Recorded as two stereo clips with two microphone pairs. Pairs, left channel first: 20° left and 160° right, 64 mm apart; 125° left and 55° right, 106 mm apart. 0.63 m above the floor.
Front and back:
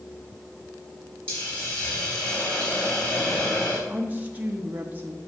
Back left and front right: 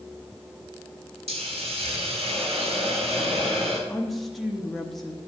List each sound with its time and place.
1.3 s a hiss: 50° right, 4 m
3.9 s a woman speaking: 155° right, 0.8 m